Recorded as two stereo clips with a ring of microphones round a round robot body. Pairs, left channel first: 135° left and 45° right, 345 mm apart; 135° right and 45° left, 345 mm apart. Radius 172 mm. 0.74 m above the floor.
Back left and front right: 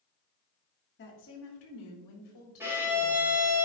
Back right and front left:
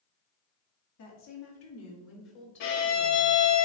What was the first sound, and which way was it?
A woman speaking, 170° right.